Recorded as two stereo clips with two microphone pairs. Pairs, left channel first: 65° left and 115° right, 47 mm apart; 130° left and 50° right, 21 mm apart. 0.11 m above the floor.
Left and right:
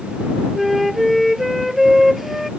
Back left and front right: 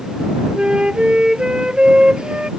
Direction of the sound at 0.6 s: 30° right.